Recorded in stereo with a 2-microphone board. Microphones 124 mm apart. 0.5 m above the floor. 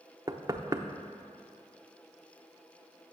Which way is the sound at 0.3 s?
30° right (ahead or behind).